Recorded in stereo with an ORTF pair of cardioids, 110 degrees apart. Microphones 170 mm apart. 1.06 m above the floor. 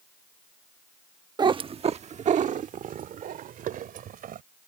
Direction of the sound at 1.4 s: 25° right.